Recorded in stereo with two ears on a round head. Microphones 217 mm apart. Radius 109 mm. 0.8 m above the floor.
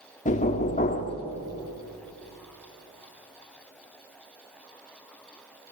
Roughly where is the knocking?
Left.